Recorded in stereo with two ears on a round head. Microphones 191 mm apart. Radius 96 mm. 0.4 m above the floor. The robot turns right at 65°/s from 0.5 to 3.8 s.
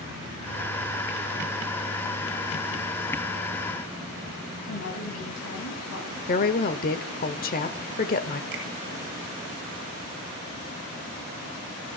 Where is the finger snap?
55° right (ahead or behind), 7.5 m.